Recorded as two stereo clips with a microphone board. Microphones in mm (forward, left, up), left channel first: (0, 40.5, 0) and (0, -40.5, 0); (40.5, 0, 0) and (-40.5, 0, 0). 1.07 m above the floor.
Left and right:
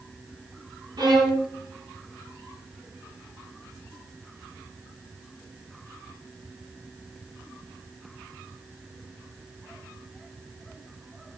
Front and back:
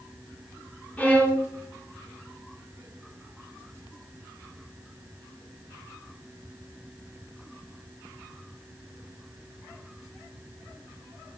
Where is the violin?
70° right, 3.5 m.